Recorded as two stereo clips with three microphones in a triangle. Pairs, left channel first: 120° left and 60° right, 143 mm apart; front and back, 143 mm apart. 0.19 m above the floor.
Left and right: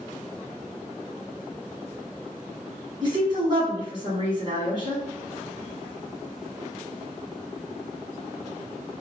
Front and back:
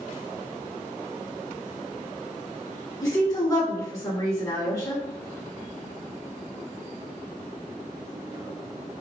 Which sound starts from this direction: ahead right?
A woman speaking, at 3.0 s.